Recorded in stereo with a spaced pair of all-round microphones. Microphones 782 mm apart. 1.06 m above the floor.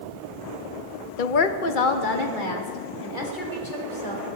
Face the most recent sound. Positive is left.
turn(degrees=85)